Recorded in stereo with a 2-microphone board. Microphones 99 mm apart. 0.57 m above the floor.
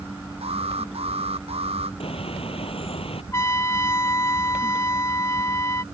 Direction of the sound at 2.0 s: 75° left (ahead or behind).